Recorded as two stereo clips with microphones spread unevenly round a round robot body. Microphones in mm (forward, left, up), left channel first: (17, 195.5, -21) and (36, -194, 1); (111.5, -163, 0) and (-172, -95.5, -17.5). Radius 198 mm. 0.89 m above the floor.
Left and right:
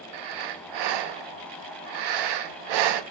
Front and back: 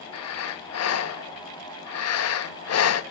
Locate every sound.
0.1 s breathing: 55° right, 0.6 m